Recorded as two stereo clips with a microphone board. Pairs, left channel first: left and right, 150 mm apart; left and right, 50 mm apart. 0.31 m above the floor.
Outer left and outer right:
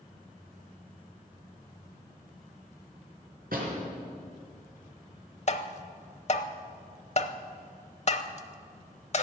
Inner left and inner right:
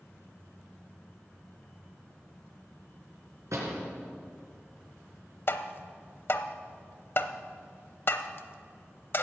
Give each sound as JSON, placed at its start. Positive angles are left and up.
{"t": 3.5, "sound": "a door slam", "side_deg": -75, "distance_m": 3.5}
{"t": 5.5, "sound": "tapping", "side_deg": 45, "distance_m": 0.8}